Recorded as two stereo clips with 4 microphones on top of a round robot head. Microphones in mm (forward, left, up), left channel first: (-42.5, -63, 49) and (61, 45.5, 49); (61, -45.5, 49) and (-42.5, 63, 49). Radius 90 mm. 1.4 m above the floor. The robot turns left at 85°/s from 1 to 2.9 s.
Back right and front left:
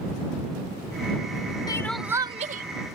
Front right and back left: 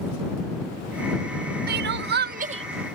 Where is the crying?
160° left; by 3.0 s 55° left.